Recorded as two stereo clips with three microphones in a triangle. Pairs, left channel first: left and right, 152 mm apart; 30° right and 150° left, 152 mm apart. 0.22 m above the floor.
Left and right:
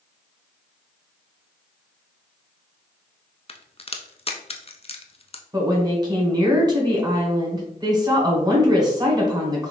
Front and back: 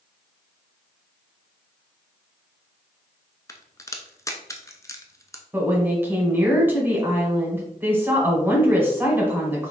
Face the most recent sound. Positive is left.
turn(degrees=-140)